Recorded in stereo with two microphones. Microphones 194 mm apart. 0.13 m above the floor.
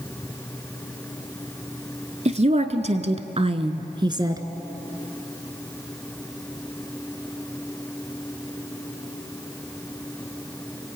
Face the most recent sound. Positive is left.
turn(degrees=-20)  # may be behind; listen again after turning